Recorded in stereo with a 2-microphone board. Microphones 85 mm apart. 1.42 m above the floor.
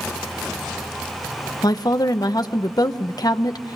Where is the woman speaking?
45° left (ahead or behind), 0.9 m.